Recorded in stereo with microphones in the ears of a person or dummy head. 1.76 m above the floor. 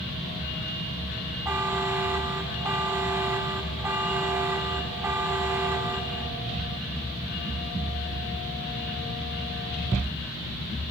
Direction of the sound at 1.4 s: 15° right (ahead or behind).